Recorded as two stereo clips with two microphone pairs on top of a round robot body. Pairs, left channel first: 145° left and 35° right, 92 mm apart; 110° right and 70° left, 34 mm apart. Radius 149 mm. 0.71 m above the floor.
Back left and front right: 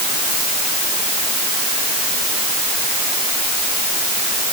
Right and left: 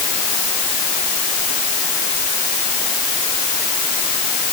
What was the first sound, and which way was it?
Only background noise.